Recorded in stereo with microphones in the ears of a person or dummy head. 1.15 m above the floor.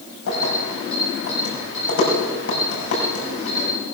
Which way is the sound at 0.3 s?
75° left (ahead or behind).